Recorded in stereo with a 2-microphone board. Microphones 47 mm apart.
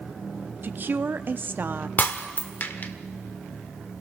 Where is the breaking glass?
45° left (ahead or behind), 1.4 m.